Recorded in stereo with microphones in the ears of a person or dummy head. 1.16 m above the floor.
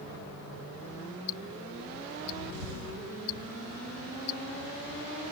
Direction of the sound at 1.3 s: 55° left (ahead or behind).